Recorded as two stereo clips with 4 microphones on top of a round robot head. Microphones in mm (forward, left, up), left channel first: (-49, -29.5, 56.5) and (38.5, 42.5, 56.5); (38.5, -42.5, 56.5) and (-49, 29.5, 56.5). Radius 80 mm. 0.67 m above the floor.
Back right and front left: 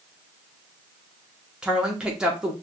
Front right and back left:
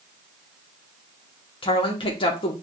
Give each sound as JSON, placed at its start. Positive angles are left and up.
{"t": 1.6, "sound": "a woman speaking", "azimuth_deg": -40, "distance_m": 0.9}